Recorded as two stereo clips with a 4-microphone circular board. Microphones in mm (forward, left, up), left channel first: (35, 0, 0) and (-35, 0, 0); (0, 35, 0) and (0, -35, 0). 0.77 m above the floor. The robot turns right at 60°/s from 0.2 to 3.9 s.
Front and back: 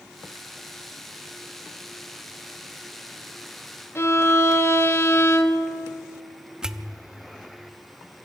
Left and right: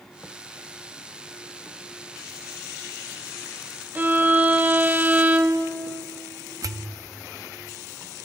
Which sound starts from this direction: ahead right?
A violin, at 4.0 s.